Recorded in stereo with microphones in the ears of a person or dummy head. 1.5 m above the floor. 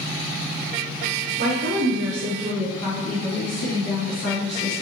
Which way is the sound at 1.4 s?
60° right (ahead or behind).